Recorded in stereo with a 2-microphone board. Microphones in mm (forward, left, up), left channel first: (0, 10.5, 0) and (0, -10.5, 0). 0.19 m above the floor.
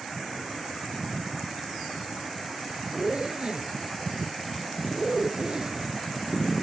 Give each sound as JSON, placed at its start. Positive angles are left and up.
{"t": 2.9, "sound": "a zipper", "side_deg": -40}